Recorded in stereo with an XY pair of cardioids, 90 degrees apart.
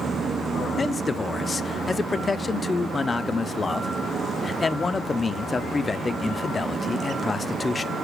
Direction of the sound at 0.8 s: 30° left.